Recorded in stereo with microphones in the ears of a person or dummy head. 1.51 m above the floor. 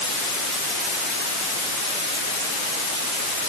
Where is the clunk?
No clunk in this recording.